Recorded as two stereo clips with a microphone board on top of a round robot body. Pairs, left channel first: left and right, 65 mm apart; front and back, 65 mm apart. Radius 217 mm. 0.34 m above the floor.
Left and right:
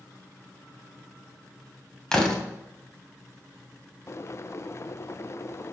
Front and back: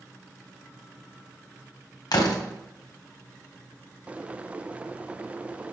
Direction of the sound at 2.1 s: 10° left.